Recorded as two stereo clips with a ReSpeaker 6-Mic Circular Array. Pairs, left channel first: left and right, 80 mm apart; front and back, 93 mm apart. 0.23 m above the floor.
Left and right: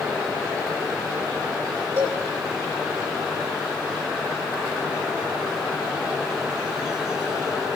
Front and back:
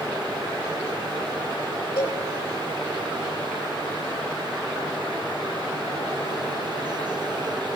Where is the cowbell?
40° right, 3.5 m.